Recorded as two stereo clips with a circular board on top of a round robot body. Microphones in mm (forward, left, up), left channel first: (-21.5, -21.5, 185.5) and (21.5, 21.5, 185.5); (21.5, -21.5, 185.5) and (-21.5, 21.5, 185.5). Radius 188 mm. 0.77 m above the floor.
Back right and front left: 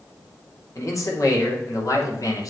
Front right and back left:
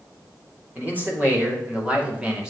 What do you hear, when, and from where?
0.8 s a man speaking: 165° right, 3.5 m; by 2.5 s 150° right, 2.5 m